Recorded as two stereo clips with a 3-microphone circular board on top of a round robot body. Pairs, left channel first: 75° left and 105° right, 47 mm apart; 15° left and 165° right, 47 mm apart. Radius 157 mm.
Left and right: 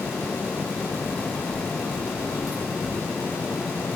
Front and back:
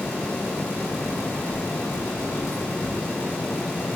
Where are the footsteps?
15° right, 4.5 m; by 3.0 s 20° right, 3 m.